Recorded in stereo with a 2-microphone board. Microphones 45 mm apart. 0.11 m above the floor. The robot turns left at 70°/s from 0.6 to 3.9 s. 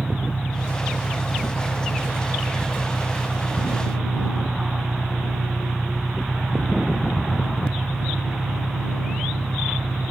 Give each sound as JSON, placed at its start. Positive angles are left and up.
{"t": 0.0, "sound": "an engine running", "azimuth_deg": 135}